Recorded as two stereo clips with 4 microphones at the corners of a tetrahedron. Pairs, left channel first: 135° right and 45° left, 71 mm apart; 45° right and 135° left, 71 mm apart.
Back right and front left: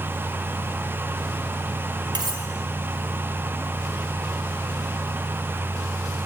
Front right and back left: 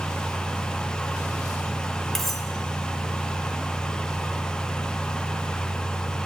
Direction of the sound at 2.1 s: 40° left.